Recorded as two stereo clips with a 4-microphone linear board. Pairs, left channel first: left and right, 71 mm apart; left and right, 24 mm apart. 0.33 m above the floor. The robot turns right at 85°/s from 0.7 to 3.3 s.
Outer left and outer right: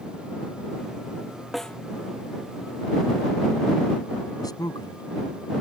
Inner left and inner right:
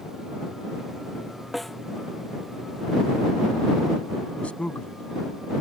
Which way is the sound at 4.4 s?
65° left (ahead or behind).